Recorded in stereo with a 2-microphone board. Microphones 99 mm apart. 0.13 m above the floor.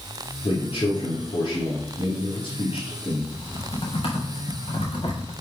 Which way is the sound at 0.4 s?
65° left (ahead or behind).